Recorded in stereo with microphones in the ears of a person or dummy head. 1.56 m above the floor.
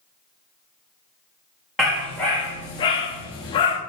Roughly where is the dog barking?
Centre.